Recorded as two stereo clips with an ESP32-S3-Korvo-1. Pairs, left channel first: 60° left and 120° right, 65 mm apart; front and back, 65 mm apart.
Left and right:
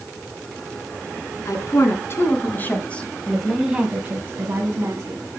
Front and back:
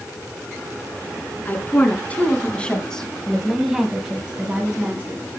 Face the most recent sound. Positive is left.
turn(degrees=-125)